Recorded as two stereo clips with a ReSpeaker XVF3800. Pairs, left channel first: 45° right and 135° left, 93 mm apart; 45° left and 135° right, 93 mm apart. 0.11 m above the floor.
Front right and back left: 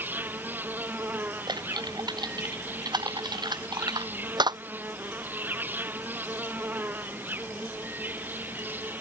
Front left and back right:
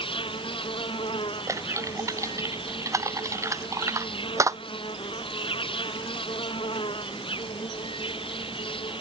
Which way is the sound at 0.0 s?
65° left.